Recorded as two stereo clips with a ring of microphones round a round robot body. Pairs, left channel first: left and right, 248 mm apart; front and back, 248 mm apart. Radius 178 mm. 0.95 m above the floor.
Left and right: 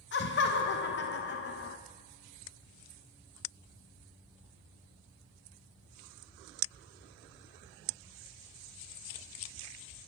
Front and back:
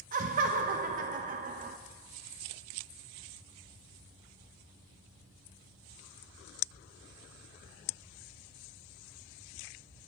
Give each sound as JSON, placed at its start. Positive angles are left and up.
{"t": 0.1, "sound": "laughter", "azimuth_deg": 125, "distance_m": 0.6}